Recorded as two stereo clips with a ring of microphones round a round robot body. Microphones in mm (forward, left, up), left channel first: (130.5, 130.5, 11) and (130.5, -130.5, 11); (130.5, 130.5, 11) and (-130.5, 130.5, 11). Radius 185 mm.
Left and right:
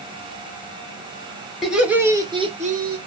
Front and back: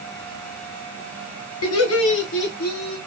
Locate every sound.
1.6 s laughter: straight ahead, 1.6 m; by 3.0 s 65° right, 1.0 m